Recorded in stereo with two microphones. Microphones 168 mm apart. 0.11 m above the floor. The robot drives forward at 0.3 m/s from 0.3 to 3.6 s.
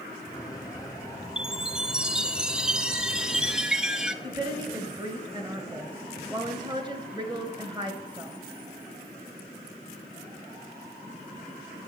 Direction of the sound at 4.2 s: 25° right (ahead or behind).